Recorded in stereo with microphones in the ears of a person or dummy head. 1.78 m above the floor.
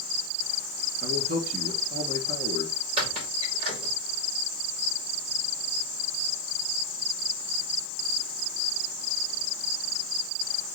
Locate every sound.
1.0 s a man speaking: 55° right (ahead or behind), 1.7 m
3.0 s a squeak: 40° right (ahead or behind), 2.5 m